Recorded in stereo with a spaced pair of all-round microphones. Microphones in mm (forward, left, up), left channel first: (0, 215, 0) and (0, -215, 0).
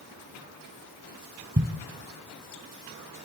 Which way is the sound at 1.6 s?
25° right (ahead or behind).